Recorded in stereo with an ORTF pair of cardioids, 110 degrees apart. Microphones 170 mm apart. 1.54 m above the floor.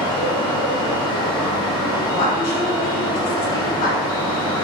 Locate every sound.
0.0 s a fan: 25° left, 1.4 m
2.1 s a woman speaking: 65° left, 1.3 m